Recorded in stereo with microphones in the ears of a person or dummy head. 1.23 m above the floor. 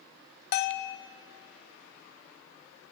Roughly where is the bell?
Left.